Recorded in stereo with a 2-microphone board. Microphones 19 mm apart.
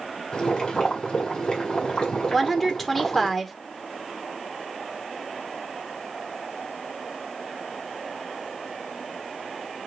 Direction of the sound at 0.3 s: 40° left (ahead or behind).